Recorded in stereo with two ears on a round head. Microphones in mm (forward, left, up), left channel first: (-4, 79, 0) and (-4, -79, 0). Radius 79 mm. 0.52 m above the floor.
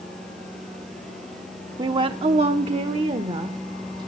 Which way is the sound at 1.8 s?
25° right (ahead or behind).